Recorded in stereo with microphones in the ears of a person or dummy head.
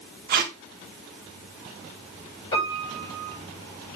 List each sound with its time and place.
0.3 s tape being pulled: 45° right (ahead or behind), 1.3 m
2.5 s a piano: 25° left (ahead or behind), 7 m